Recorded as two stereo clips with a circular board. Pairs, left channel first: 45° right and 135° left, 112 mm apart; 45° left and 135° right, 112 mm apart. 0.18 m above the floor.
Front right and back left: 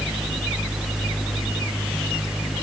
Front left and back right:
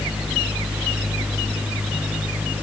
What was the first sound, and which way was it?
Only background noise.